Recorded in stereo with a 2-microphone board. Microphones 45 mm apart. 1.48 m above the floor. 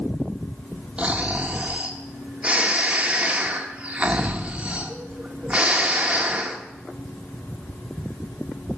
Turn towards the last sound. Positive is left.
turn(degrees=-25)  # may be behind; listen again after turning